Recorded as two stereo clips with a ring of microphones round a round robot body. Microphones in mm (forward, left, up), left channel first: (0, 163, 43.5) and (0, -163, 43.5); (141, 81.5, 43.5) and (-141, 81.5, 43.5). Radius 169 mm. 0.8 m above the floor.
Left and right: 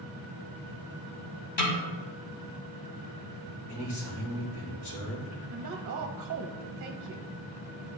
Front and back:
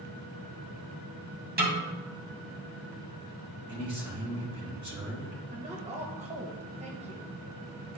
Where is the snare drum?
125° left, 2.5 m.